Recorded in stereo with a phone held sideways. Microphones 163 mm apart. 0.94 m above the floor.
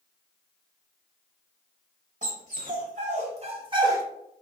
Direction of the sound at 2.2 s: 55° right (ahead or behind).